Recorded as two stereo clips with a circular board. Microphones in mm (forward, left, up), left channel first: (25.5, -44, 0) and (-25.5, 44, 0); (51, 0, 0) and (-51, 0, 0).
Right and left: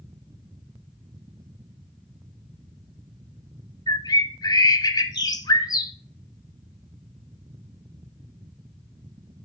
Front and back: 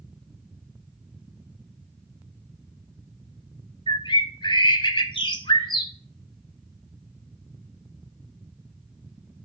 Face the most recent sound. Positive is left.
turn(degrees=-20)